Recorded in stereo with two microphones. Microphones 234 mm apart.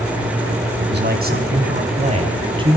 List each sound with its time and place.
0.8 s a man speaking: 50° right (ahead or behind), 4 m; by 2.8 s 20° right (ahead or behind), 4 m